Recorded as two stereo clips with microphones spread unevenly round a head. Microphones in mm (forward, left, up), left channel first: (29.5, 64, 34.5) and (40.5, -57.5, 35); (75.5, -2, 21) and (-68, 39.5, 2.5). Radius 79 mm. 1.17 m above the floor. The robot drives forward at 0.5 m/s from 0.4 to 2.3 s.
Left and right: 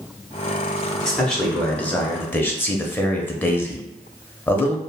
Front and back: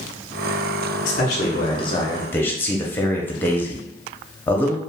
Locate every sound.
1.1 s a man speaking: 10° left, 0.9 m; by 4.8 s 60° left, 0.5 m